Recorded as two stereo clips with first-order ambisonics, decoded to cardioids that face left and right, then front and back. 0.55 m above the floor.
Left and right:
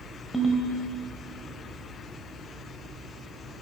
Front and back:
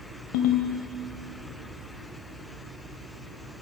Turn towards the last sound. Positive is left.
turn(degrees=0)